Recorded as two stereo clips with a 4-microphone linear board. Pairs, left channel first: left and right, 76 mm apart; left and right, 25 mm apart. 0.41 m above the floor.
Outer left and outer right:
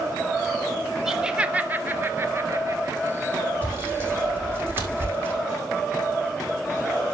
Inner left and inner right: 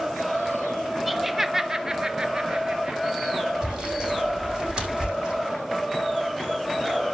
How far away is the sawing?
About 6.5 m.